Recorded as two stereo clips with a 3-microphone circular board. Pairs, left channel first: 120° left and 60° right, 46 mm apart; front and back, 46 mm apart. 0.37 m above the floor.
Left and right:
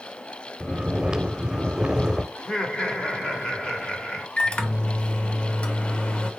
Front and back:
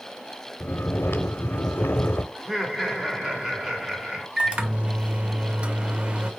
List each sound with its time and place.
0.6 s snoring: 10° left, 0.5 m
2.4 s laughter: 130° left, 0.8 m
4.4 s a microwave: 155° left, 0.6 m